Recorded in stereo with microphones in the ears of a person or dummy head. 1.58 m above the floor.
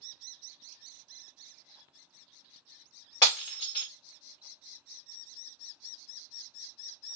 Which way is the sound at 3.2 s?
25° left (ahead or behind).